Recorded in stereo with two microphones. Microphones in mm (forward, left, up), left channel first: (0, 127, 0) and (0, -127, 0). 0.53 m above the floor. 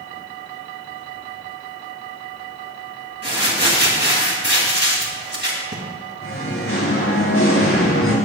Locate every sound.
3.2 s crumpling: 45° right (ahead or behind), 2.5 m
6.2 s singing: 55° left (ahead or behind), 5.5 m